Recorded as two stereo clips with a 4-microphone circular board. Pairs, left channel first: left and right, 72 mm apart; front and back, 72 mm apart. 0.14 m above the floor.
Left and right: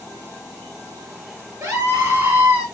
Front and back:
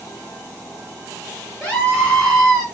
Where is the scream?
55° right, 1.3 m; by 2.6 s 110° right, 1.1 m.